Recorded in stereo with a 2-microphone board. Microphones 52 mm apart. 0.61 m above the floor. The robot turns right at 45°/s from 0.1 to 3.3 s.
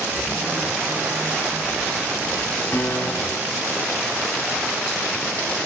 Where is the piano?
45° left (ahead or behind), 1.7 m; by 3.6 s 25° left (ahead or behind), 1.7 m.